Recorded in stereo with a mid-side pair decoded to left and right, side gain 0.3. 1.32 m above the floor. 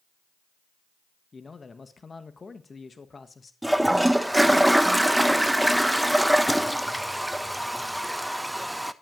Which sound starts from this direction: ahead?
A toilet flushing, at 3.6 s.